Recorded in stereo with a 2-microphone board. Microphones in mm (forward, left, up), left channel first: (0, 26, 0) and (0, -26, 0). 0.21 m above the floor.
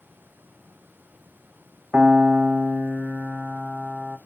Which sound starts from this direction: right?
A piano, at 1.9 s.